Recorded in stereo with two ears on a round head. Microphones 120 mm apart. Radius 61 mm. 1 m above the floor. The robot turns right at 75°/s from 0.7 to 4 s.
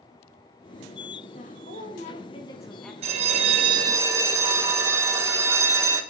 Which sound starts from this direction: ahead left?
A woman speaking, at 1.3 s.